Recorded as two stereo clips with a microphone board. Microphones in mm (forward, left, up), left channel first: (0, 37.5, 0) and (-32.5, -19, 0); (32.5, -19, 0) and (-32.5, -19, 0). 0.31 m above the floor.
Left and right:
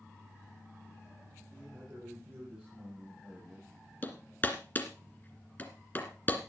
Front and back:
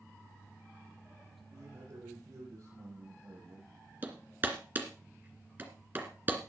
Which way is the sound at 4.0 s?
120° left.